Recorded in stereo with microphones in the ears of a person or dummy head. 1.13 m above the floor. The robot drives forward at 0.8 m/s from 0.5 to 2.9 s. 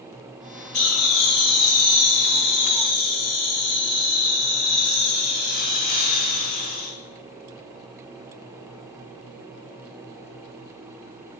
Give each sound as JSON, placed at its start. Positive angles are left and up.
{"t": 0.7, "sound": "laughter", "side_deg": 85, "distance_m": 3.0}